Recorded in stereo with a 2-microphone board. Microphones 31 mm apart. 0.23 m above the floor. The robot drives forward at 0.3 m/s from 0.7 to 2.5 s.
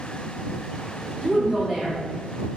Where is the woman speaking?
15° left (ahead or behind), 1.1 m; by 2.0 s 20° left (ahead or behind), 1.0 m.